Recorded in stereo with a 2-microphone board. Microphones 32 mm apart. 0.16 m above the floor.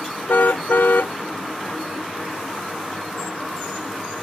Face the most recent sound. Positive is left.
turn(degrees=80)